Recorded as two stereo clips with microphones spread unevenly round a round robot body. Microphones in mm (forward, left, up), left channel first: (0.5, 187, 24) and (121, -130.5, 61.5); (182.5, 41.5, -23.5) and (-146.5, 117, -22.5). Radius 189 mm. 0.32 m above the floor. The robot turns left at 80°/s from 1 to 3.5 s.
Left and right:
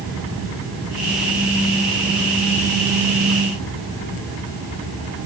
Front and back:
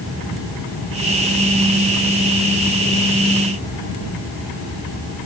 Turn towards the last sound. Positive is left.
No sound to turn to.